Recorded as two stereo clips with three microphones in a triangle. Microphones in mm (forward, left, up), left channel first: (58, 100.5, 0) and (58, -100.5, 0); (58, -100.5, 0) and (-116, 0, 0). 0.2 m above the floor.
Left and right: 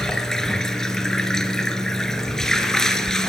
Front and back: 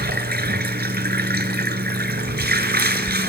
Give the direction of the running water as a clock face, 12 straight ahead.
6 o'clock.